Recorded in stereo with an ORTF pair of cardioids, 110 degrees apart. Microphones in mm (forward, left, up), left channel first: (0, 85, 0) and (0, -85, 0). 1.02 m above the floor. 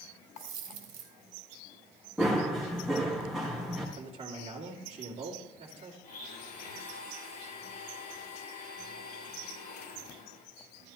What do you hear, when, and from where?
0.4 s a dropped coin: 60° right, 2.5 m
2.2 s running footsteps: straight ahead, 4.5 m
4.0 s a man speaking: 35° right, 2.5 m
6.0 s a blender: 70° left, 7.5 m